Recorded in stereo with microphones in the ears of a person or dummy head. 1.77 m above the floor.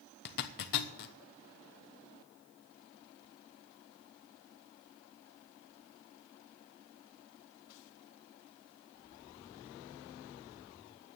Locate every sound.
0.2 s a zipper: 55° left (ahead or behind), 1.0 m